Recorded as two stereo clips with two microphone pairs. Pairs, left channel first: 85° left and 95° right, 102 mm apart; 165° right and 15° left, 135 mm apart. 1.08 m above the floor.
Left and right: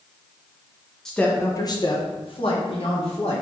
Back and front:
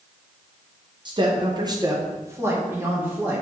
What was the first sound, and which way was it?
A woman speaking, straight ahead.